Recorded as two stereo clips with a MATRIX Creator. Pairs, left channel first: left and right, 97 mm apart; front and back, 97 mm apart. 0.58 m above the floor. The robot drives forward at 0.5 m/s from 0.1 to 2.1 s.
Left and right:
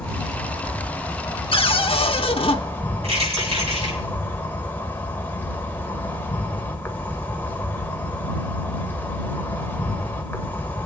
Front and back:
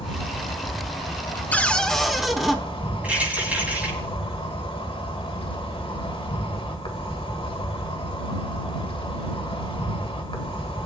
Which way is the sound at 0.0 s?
10° left.